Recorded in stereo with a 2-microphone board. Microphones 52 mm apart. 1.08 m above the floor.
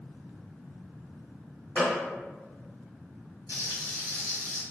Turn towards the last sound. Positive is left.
turn(degrees=-70)  # may be behind; listen again after turning